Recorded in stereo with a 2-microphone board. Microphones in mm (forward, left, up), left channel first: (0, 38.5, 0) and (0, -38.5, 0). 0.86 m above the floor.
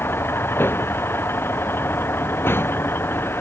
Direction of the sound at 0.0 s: 30° left (ahead or behind).